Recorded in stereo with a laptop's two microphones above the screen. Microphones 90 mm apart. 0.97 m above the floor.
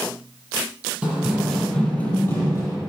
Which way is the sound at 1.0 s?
15° right (ahead or behind).